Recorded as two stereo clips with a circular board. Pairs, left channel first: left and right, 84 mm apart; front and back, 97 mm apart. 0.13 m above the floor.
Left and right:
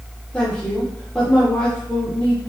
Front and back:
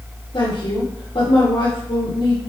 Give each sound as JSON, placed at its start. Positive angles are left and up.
{"t": 0.3, "sound": "a woman speaking", "azimuth_deg": 15, "distance_m": 4.5}